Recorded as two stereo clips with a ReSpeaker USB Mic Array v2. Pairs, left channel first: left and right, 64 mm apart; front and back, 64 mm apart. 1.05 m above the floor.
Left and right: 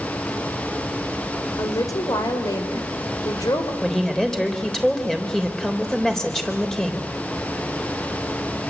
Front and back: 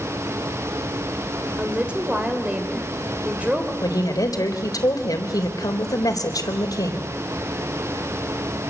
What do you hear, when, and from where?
1.6 s a woman speaking: 110° left, 4 m
3.8 s a woman speaking: 10° left, 4 m